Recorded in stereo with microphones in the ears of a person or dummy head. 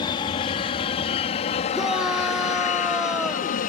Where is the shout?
Centre (ahead or behind).